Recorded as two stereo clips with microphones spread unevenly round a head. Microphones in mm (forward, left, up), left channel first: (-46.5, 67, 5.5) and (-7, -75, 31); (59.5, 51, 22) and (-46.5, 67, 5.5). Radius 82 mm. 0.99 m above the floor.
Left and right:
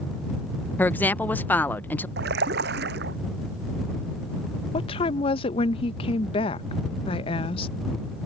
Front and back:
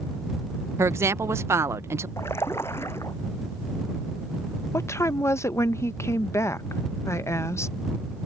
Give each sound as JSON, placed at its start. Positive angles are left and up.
{"t": 0.8, "sound": "a woman speaking", "azimuth_deg": 155}
{"t": 2.2, "sound": "a splash", "azimuth_deg": -85}
{"t": 4.7, "sound": "a woman speaking", "azimuth_deg": 60}